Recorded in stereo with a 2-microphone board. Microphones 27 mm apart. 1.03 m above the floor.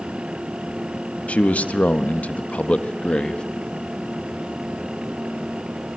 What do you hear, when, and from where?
1.3 s a man speaking: 60° left (ahead or behind), 1.4 m; by 3.4 s 40° left (ahead or behind), 1.8 m